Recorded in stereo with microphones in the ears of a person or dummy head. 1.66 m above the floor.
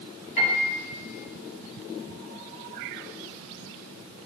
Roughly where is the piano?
Left.